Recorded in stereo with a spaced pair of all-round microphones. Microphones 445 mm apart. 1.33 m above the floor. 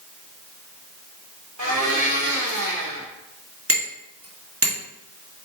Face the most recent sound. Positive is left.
turn(degrees=-30)  # may be behind; listen again after turning